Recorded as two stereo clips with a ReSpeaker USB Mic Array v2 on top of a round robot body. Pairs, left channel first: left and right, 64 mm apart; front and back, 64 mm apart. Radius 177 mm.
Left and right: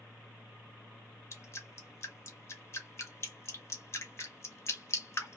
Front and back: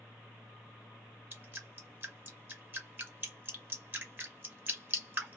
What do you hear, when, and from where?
1.3 s dripping: 130° left, 1.6 m